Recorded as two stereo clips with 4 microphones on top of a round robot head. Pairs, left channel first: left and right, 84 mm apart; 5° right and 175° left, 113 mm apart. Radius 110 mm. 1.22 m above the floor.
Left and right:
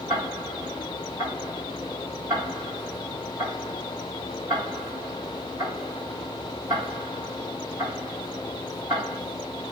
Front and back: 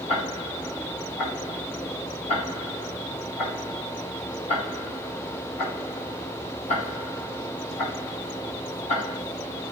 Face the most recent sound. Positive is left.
turn(degrees=-15)